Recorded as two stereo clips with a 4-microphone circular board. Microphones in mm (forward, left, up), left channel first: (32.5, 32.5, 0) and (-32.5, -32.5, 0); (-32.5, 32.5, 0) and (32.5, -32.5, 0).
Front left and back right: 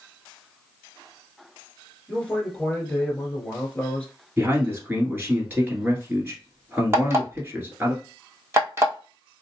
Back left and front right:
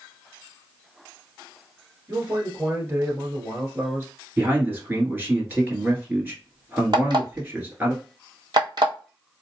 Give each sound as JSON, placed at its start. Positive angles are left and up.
{"t": 2.1, "sound": "a man speaking", "azimuth_deg": -25, "distance_m": 1.5}
{"t": 4.4, "sound": "a man speaking", "azimuth_deg": -90, "distance_m": 1.4}
{"t": 6.9, "sound": "an alarm clock", "azimuth_deg": -75, "distance_m": 1.2}